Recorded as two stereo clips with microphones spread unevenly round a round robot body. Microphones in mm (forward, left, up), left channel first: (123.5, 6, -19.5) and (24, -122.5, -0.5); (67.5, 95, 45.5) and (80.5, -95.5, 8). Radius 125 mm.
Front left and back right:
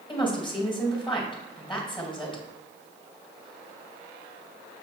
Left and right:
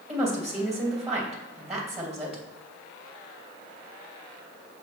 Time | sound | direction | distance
0.1 | a woman speaking | 5° right | 2.5 m